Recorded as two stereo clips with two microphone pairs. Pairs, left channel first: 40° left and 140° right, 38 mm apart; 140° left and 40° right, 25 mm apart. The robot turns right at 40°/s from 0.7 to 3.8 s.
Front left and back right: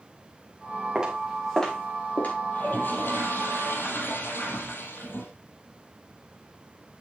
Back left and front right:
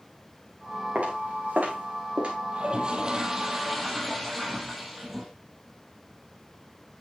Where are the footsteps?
70° right, 4.5 m; by 2.4 s 5° left, 4.5 m.